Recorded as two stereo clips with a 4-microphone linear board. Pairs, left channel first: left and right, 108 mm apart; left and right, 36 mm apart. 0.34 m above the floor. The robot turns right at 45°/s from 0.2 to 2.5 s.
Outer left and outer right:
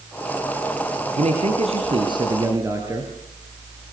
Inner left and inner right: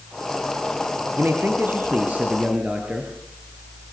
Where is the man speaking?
85° right, 5 m; by 3.1 s 25° right, 5 m.